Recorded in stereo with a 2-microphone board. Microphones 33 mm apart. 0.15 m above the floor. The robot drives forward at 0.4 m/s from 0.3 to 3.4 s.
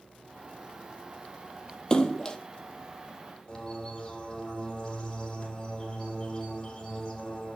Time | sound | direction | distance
1.9 | a splash | 20° left (ahead or behind) | 1.4 m
3.5 | a bird | 15° left (ahead or behind) | 6 m